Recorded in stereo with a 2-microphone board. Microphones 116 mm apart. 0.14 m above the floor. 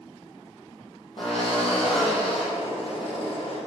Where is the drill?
55° left (ahead or behind), 4.5 m.